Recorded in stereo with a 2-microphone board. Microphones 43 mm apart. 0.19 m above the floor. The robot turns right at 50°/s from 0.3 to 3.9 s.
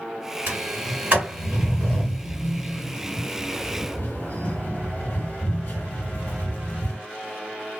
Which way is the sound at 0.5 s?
50° right (ahead or behind).